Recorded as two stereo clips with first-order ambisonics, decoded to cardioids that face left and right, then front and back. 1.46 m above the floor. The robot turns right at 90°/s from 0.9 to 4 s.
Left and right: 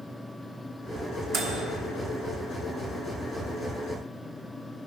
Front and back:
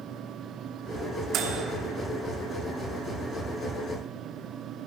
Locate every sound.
1.3 s a microwave: 135° right, 1.2 m; by 1.6 s 110° right, 1.2 m